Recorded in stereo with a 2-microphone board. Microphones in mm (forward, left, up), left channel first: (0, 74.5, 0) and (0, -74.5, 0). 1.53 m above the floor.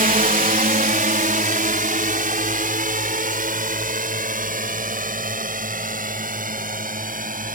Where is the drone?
65° right (ahead or behind).